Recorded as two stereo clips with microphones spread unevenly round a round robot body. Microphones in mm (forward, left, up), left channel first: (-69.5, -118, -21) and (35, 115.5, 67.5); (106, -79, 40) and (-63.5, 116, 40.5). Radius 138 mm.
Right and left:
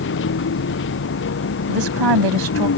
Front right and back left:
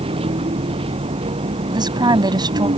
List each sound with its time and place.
0.0 s a vehicle: 160° right
1.7 s a woman speaking: 55° left